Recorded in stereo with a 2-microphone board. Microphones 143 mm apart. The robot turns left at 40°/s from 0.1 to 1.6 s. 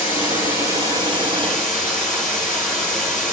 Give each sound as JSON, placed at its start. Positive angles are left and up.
{"t": 0.0, "sound": "running water", "azimuth_deg": 65, "distance_m": 1.0}